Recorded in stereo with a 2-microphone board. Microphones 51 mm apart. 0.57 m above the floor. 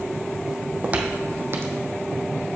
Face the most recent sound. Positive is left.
turn(degrees=-65)  # may be behind; listen again after turning